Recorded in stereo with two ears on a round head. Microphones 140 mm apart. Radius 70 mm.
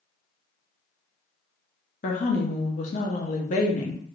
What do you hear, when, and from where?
2.0 s a woman speaking: 50° left (ahead or behind), 0.8 m